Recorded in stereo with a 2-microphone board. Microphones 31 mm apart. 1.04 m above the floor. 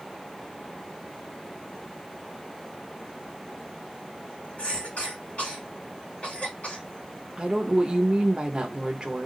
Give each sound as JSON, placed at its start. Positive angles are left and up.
{"t": 4.6, "sound": "a cough", "side_deg": 35, "distance_m": 2.0}
{"t": 7.4, "sound": "a woman speaking", "side_deg": -30, "distance_m": 0.9}